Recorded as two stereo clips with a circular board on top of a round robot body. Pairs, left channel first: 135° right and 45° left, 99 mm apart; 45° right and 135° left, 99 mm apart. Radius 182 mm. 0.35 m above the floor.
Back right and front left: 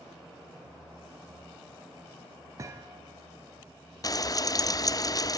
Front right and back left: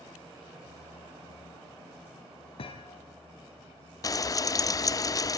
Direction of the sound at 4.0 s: 90° right.